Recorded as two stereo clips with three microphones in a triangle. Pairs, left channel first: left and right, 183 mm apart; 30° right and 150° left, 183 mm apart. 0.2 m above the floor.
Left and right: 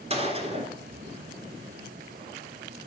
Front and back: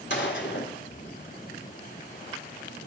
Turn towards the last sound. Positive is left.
turn(degrees=-35)